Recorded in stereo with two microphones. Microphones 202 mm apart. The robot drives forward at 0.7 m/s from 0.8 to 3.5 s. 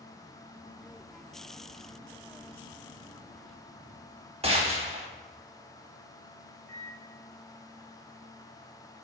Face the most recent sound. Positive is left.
turn(degrees=-5)  # may be behind; listen again after turning